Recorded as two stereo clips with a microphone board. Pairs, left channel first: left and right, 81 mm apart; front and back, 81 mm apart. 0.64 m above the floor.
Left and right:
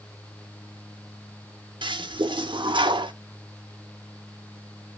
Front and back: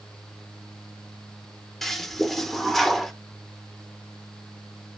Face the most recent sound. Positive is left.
turn(degrees=-85)